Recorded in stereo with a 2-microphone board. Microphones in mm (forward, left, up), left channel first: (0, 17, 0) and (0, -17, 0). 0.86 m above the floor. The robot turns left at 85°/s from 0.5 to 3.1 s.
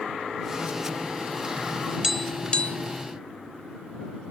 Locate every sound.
2.0 s tapping: 10° right (ahead or behind); by 2.8 s 50° left (ahead or behind)